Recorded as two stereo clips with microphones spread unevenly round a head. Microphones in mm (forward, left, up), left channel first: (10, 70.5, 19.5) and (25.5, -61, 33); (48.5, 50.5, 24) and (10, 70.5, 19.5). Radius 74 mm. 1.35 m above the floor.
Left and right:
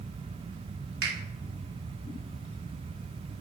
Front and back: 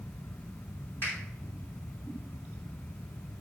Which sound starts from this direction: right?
A finger snap, at 1.0 s.